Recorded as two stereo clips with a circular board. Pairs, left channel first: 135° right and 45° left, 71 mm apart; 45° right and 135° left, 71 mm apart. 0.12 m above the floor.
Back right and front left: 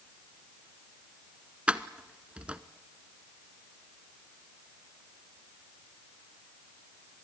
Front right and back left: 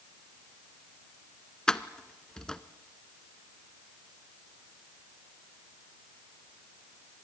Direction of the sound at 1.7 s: 15° left.